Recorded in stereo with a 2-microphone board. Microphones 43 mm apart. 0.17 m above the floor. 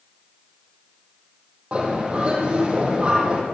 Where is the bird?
30° right (ahead or behind), 4 m.